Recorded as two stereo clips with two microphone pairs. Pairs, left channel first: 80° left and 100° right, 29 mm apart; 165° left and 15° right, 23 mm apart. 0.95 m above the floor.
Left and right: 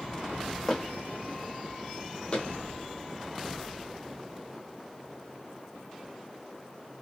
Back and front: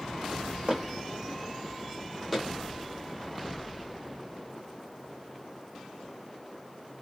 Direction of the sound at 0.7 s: 5° left.